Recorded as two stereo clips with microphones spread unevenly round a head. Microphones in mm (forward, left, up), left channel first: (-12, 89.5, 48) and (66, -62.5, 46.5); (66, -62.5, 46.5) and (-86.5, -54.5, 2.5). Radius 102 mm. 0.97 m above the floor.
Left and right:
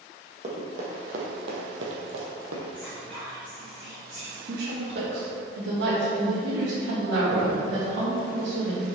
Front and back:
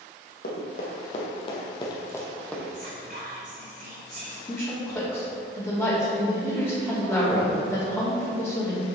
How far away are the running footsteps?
About 3 m.